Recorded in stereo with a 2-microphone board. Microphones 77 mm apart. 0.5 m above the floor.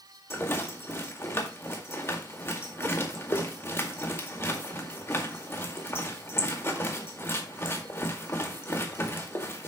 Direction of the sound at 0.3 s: 35° left (ahead or behind).